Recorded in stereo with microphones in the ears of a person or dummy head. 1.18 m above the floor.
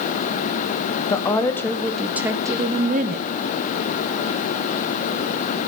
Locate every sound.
1.1 s a woman speaking: 15° left (ahead or behind), 1.1 m; by 3.3 s 45° right (ahead or behind), 0.7 m